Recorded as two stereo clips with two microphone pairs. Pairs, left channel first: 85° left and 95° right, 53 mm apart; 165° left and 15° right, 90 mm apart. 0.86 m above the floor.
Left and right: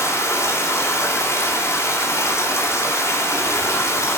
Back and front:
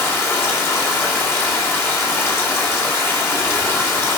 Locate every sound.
0.0 s running water: 105° left, 3 m